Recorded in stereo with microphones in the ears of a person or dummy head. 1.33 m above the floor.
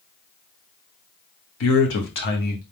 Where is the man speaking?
75° left (ahead or behind), 1.5 m; by 2.6 s 40° left (ahead or behind), 1.5 m.